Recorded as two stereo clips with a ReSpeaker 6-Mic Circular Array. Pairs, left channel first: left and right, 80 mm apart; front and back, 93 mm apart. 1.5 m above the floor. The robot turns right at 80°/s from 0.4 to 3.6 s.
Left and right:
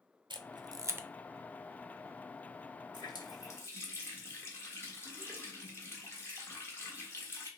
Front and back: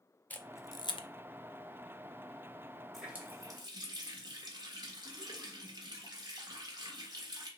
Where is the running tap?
90° left, 1.3 m; by 7.5 s 145° left, 1.3 m.